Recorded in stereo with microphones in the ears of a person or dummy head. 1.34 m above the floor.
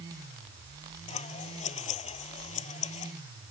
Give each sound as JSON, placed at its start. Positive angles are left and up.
{"t": 1.1, "sound": "scissors", "side_deg": 35}